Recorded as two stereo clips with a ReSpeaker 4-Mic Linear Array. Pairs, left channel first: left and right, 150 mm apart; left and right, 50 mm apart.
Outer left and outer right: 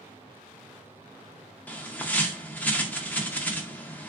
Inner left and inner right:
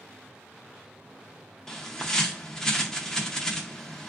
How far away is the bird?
About 0.5 m.